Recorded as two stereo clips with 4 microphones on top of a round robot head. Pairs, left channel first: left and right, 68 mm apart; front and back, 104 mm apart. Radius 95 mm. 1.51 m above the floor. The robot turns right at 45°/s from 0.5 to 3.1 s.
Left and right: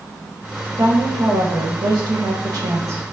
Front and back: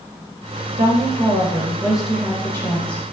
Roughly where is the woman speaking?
Behind right.